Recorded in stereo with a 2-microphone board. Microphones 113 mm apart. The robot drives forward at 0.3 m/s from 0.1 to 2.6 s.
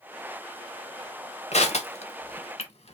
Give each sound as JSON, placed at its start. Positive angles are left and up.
{"t": 1.5, "sound": "crushing", "side_deg": 75, "distance_m": 1.0}